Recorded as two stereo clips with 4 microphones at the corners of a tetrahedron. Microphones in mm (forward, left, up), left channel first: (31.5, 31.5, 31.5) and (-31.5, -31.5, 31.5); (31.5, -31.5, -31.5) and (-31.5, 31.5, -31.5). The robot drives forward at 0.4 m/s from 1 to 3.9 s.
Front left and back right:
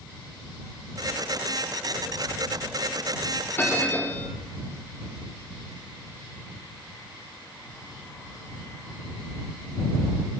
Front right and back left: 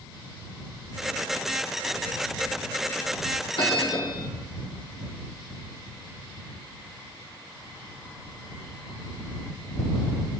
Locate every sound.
3.6 s a bell: 20° right, 3.5 m